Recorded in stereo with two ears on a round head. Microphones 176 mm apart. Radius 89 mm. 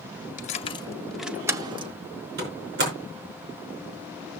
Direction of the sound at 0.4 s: 40° left (ahead or behind).